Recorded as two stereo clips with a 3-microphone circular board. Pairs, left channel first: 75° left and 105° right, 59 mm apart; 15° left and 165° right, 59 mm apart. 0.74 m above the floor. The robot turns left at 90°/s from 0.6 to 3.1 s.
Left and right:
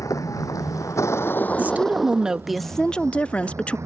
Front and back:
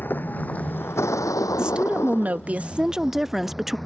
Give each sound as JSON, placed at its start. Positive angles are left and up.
{"t": 0.0, "sound": "a vehicle", "azimuth_deg": 70}
{"t": 1.6, "sound": "a woman speaking", "azimuth_deg": -105}